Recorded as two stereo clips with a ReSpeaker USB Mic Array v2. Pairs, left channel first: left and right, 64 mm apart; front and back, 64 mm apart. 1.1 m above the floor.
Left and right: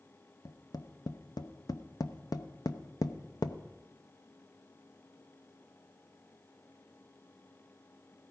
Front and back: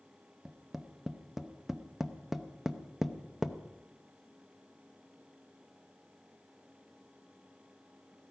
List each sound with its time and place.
0.5 s tapping: 95° left, 0.7 m